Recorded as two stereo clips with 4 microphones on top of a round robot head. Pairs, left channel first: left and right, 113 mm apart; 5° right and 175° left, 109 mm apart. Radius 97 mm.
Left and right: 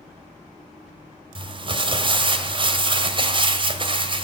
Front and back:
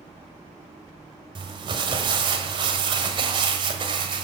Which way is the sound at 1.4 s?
135° right.